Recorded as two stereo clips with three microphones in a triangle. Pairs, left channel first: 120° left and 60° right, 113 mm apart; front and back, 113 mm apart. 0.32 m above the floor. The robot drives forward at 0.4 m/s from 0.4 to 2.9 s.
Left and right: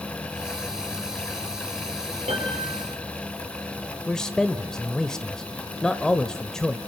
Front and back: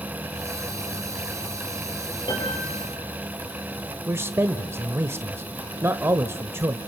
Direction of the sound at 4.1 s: 165° right.